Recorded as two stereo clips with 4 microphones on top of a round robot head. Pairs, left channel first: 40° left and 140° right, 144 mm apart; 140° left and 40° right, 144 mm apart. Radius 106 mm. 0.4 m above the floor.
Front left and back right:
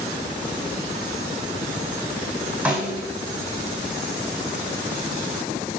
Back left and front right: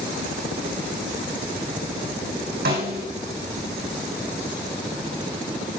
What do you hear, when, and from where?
2.6 s a snare drum: 55° right, 5.5 m